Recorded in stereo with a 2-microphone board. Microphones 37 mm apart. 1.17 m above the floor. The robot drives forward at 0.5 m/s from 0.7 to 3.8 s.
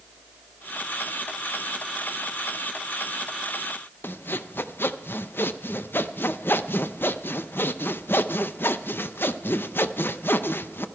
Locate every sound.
4.0 s sawing: 80° left, 0.6 m